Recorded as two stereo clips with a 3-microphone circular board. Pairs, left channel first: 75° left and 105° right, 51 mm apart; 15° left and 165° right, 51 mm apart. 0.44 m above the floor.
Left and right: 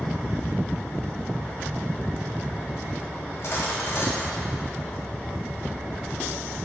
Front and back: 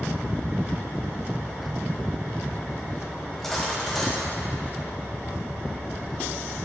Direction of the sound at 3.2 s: 100° left.